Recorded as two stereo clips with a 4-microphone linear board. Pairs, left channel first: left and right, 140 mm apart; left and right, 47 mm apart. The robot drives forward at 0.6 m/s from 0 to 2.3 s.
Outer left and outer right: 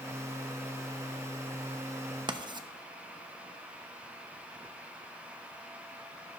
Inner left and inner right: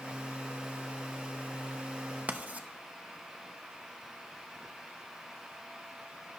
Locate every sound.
2.3 s writing: 35° right (ahead or behind), 0.5 m; by 2.7 s 30° right (ahead or behind), 0.5 m